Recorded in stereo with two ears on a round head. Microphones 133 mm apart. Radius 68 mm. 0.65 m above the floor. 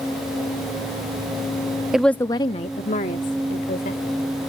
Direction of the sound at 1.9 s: 5° right (ahead or behind).